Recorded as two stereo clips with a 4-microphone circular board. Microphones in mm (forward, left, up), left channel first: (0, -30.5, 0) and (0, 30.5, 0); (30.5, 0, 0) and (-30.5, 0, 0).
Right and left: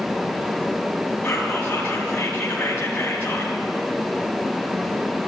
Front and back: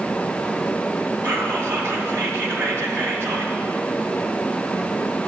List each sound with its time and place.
1.2 s whispering: 150° right, 2.5 m